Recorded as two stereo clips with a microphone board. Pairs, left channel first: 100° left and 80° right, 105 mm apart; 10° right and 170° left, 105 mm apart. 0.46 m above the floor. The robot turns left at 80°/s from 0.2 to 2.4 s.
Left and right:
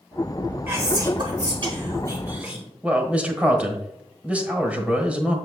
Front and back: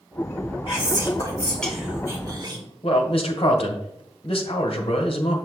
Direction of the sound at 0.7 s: 15° right.